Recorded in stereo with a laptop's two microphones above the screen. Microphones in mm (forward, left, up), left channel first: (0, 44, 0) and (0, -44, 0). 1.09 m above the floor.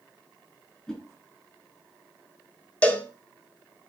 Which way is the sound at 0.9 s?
10° left (ahead or behind).